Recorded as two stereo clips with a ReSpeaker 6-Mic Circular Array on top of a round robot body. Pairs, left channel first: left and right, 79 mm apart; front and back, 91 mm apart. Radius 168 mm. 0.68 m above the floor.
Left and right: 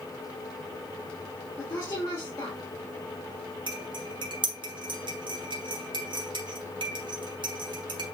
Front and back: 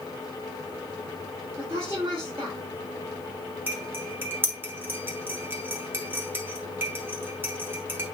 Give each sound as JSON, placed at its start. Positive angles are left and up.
{"t": 1.6, "sound": "a woman speaking", "azimuth_deg": 125, "distance_m": 3.0}
{"t": 3.7, "sound": "cutlery clinking", "azimuth_deg": -115, "distance_m": 1.6}